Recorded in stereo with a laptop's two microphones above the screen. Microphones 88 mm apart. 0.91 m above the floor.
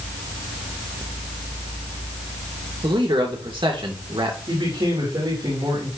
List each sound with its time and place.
2.8 s a man speaking: 70° right (ahead or behind), 2.5 m
4.5 s a man speaking: 65° right (ahead or behind), 3 m